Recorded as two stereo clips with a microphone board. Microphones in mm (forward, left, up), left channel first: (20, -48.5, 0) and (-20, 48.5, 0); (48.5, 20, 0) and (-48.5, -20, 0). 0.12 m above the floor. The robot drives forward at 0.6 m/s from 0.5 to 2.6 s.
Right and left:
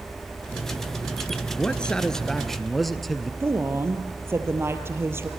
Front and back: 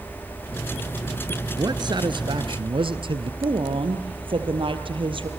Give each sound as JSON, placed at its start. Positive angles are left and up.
{"t": 1.6, "sound": "a man speaking", "azimuth_deg": -140, "distance_m": 1.4}
{"t": 3.4, "sound": "a woman speaking", "azimuth_deg": 175, "distance_m": 3.0}